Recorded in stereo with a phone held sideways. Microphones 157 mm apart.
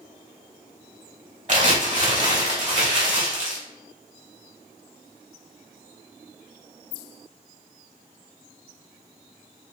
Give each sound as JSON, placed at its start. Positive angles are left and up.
{"t": 1.5, "sound": "crumpling", "side_deg": -50, "distance_m": 1.8}